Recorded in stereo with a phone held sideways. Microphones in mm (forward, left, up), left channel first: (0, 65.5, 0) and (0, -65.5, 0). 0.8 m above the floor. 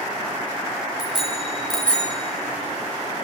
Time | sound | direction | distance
1.0 | a bicycle bell | 5° right (ahead or behind) | 3.5 m